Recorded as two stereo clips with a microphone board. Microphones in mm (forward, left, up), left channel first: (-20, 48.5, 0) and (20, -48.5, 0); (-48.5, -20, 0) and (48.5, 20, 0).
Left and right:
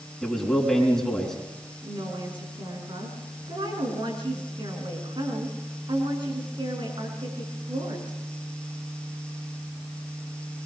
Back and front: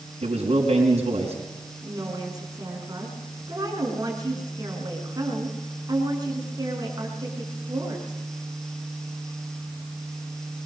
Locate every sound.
0.2 s a man speaking: 25° left, 4.5 m
1.8 s a woman speaking: 30° right, 6.5 m